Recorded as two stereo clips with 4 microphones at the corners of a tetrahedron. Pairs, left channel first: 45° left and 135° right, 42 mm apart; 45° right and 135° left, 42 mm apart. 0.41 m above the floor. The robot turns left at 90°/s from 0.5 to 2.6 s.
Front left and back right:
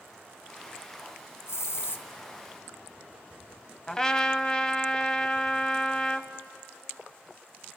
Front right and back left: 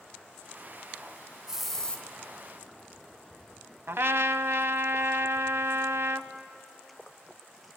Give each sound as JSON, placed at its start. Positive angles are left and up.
{"t": 1.5, "sound": "a hiss", "azimuth_deg": 65, "distance_m": 2.5}
{"t": 3.9, "sound": "a trumpet", "azimuth_deg": 115, "distance_m": 0.8}